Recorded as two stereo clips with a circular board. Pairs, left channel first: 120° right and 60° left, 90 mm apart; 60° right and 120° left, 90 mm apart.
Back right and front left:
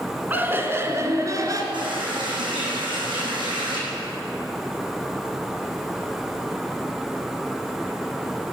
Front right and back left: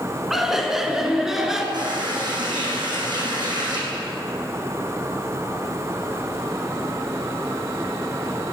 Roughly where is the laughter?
Ahead left.